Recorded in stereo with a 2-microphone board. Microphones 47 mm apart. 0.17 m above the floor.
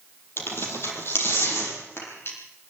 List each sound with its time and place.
0.4 s tearing paper: 60° left (ahead or behind), 5.5 m